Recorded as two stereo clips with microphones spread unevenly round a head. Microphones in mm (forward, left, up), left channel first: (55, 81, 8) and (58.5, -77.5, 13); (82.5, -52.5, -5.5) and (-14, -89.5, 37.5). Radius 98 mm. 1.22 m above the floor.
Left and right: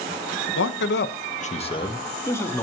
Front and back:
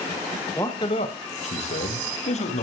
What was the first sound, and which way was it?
A man speaking, 100° left.